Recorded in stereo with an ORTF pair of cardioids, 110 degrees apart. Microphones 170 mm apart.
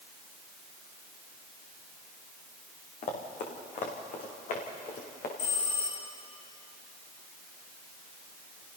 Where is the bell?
50° left, 9.5 m.